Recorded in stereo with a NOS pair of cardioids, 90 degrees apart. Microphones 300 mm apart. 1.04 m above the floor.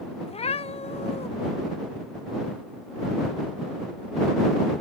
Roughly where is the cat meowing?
Ahead.